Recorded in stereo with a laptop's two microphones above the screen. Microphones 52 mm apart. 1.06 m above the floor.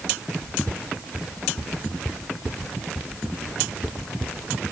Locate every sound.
Only background noise.